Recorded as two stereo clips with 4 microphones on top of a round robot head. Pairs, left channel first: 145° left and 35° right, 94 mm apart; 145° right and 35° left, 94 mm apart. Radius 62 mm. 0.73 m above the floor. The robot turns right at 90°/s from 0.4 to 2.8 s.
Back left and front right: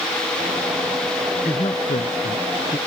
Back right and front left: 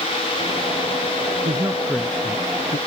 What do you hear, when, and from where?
1.4 s a man speaking: 80° left; by 2.8 s 160° right